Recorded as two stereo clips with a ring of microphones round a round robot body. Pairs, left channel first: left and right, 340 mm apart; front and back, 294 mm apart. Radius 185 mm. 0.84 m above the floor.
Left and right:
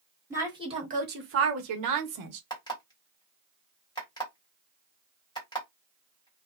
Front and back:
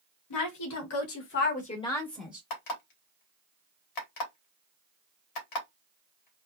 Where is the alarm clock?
10° left, 1.1 m.